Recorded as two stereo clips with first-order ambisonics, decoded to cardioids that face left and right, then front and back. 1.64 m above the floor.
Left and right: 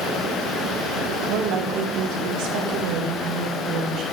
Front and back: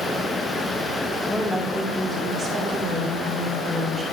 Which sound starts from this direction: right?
A woman speaking, at 1.3 s.